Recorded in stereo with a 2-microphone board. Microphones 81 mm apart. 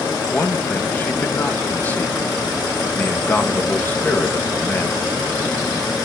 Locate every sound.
0.3 s a man speaking: 20° left (ahead or behind), 1.5 m